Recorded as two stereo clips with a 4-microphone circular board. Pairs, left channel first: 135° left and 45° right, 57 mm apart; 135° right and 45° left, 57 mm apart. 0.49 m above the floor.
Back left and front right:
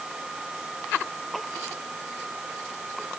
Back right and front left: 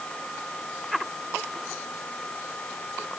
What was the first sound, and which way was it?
Only background noise.